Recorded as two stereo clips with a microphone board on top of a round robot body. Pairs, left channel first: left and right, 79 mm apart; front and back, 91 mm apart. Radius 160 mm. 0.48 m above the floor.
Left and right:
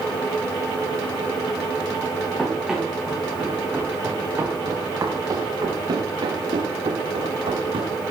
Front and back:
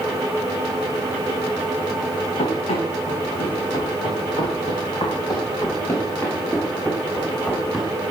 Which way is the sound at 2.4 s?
5° right.